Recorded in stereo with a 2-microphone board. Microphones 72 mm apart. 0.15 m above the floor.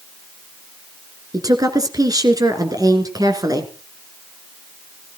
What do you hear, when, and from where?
1.3 s a woman speaking: 50° right (ahead or behind), 2.5 m